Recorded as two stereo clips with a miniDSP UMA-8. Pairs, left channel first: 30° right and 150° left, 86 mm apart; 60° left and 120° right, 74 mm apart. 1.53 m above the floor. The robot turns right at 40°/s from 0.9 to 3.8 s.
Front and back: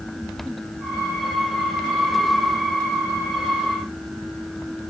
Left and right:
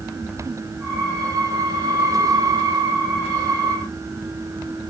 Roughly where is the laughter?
I don't hear laughter.